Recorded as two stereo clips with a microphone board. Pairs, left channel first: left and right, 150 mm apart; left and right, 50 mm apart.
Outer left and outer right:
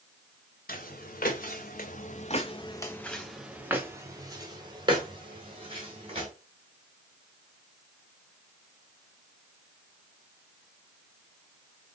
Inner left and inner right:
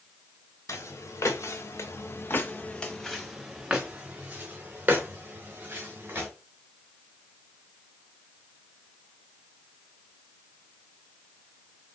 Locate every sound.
0.7 s footsteps: 85° left, 1.2 m; by 6.3 s 40° right (ahead or behind), 2 m